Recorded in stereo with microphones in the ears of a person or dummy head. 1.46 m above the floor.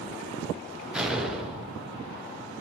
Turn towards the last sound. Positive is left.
turn(degrees=0)  # may be behind; listen again after turning